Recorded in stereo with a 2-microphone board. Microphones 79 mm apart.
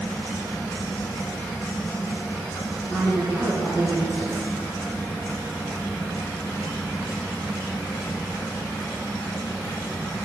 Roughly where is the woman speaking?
Right.